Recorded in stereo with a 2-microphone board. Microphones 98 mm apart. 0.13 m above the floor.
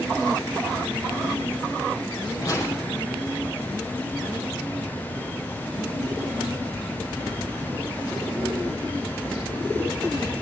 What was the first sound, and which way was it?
A whoosh, 35° left (ahead or behind).